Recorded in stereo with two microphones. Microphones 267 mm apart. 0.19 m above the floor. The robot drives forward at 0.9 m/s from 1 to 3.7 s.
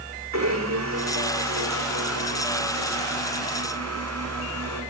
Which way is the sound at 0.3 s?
85° right.